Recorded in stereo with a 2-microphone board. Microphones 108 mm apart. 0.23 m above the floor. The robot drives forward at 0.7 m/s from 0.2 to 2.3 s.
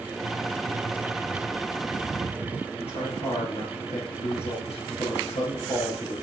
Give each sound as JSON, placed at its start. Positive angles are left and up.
{"t": 2.8, "sound": "a man speaking", "side_deg": 70, "distance_m": 4.5}